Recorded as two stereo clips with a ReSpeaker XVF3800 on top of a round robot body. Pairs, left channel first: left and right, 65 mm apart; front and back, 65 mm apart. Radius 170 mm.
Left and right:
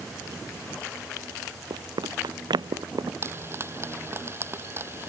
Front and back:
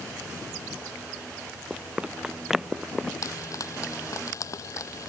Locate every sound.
1.7 s running footsteps: 105° right; by 3.1 s 85° right
3.2 s frying: 40° right